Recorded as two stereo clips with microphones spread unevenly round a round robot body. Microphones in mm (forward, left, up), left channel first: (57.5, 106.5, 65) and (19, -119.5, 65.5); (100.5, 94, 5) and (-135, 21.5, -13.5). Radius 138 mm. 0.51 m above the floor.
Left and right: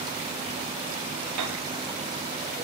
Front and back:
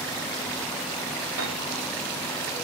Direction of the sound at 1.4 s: 120° right.